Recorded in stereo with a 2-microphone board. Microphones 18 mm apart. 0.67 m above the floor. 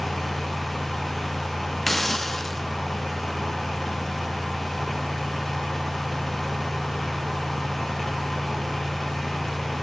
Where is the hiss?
15° left (ahead or behind), 1.2 m.